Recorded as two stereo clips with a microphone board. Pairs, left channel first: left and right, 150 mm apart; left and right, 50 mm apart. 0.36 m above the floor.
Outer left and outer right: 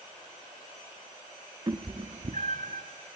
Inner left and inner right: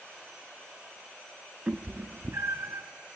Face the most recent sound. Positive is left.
turn(degrees=-85)